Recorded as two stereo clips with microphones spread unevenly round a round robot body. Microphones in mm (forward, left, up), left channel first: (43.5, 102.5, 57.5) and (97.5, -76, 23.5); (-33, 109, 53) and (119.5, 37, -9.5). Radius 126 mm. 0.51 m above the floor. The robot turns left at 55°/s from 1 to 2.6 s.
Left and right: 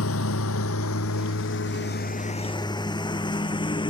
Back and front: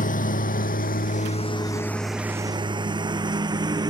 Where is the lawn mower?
120° left; by 3.9 s 40° left.